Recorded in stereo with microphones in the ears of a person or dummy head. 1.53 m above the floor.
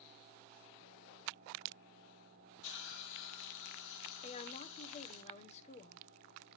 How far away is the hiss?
About 2 m.